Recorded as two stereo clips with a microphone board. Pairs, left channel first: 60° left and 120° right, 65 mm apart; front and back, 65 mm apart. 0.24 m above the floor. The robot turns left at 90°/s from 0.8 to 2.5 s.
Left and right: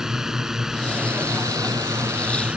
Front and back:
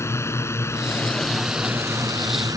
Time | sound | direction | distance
0.0 | a drone | 40° right | ?